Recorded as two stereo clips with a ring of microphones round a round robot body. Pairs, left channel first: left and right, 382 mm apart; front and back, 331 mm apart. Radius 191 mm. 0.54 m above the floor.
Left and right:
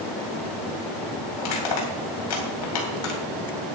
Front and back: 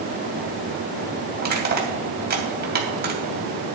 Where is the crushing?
120° left, 3 m.